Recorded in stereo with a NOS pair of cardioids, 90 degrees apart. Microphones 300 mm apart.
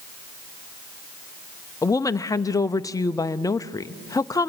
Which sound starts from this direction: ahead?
A woman speaking, at 1.8 s.